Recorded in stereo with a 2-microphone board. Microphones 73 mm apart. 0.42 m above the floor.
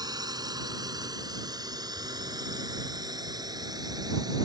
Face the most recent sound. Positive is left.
turn(degrees=-65)  # may be behind; listen again after turning